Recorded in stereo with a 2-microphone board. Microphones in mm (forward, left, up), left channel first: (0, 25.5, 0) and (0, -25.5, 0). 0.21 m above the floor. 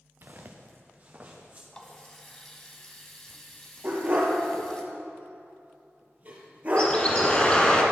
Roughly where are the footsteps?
Right.